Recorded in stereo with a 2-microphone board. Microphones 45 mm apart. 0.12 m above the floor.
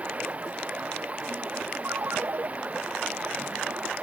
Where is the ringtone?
75° right (ahead or behind).